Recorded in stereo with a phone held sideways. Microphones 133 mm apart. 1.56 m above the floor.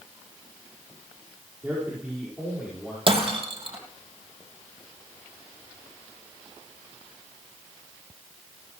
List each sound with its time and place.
1.6 s a man speaking: 10° right (ahead or behind), 5 m; by 3.0 s centre (ahead or behind), 5.5 m
3.1 s breaking glass: 45° right (ahead or behind), 3.5 m